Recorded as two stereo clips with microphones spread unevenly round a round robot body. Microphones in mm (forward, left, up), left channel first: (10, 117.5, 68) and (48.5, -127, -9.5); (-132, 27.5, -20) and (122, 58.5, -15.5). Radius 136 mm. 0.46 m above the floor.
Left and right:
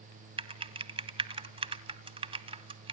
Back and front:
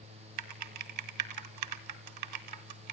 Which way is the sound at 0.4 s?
20° right.